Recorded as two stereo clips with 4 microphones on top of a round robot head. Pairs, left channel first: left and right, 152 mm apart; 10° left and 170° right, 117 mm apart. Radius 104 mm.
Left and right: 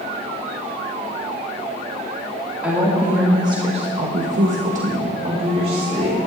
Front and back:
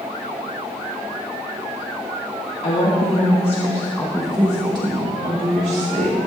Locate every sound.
2.6 s a woman speaking: 10° right, 2.5 m; by 6.2 s 150° right, 3 m